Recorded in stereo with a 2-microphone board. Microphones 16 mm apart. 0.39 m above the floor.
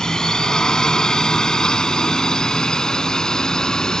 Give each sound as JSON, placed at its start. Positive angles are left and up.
{"t": 0.0, "sound": "a drone", "side_deg": 50}